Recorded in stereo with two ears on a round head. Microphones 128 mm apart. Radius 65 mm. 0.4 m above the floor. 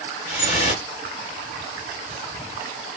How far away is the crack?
I don't hear a crack.